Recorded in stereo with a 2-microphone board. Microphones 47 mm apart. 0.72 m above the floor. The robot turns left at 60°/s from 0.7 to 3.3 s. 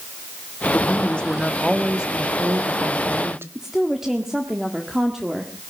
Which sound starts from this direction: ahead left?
A woman speaking, at 0.7 s.